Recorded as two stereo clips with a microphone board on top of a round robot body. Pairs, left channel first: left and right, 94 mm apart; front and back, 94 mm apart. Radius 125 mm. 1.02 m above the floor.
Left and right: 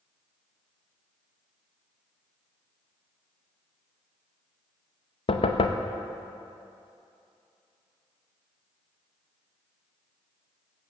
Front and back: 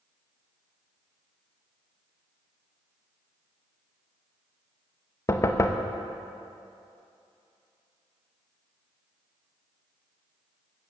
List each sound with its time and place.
5.3 s knocking: 60° left, 0.8 m